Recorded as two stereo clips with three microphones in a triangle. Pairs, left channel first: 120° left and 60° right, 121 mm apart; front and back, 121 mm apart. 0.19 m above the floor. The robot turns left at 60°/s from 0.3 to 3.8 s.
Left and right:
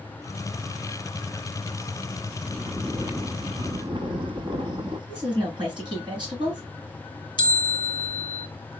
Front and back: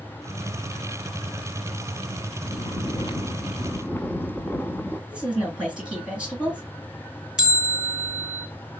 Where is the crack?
No crack in this recording.